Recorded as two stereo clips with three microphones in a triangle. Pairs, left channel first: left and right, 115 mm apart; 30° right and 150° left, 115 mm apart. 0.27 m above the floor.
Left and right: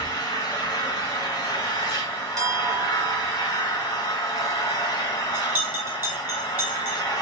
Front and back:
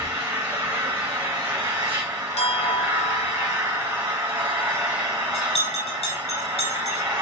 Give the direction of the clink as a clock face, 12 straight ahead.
1 o'clock.